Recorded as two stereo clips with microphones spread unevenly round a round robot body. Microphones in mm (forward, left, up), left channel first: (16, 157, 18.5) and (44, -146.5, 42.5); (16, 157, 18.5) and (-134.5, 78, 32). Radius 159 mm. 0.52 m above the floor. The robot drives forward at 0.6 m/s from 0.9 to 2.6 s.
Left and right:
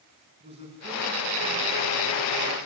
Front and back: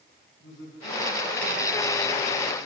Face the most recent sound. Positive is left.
turn(degrees=-15)